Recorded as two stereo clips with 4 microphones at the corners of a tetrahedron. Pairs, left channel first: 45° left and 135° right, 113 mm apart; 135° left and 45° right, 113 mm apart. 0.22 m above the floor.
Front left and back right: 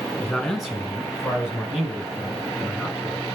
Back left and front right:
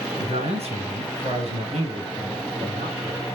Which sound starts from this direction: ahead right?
A man speaking, at 0.2 s.